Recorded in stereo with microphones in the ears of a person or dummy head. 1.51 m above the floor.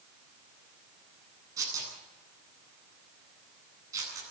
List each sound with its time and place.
1.6 s tearing paper: 25° right (ahead or behind), 9.5 m